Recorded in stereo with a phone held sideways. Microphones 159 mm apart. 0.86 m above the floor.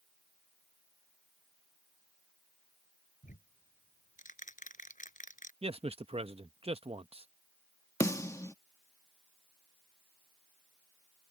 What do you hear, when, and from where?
3.2 s ticking: 55° left (ahead or behind)
5.6 s a man speaking: 40° right (ahead or behind)
8.0 s a snare drum: 20° left (ahead or behind)